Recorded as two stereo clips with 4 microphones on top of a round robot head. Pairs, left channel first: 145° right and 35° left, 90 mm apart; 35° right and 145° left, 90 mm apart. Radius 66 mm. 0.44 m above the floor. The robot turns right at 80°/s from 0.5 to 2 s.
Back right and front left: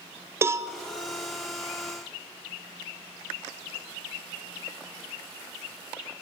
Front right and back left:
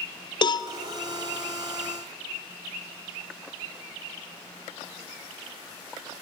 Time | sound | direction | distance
0.4 | a cowbell | 20° right | 1.1 m